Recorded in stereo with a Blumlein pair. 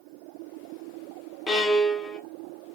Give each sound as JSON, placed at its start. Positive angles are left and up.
{"t": 1.5, "sound": "a violin", "azimuth_deg": 15, "distance_m": 1.1}